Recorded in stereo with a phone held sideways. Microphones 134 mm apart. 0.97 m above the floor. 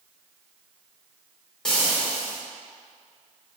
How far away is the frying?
About 0.6 m.